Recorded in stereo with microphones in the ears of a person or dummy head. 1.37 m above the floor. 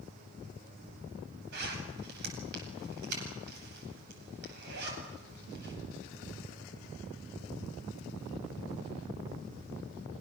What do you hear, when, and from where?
1.5 s a zipper: 60° right (ahead or behind), 9.5 m